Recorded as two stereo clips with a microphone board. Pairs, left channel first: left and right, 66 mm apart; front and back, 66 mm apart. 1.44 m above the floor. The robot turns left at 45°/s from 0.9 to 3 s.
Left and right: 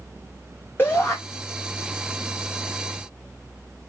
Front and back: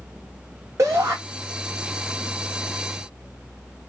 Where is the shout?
145° left, 1.5 m; by 1.2 s 135° left, 1.5 m.